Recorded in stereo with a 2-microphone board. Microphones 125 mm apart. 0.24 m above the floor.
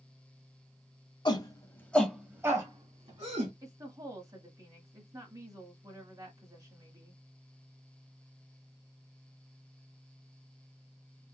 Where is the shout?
40° left (ahead or behind), 1.3 m; by 3.5 s 55° right (ahead or behind), 1.6 m.